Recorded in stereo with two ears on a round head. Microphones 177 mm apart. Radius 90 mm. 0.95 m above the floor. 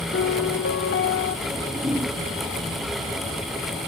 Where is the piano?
55° left (ahead or behind), 1.3 m.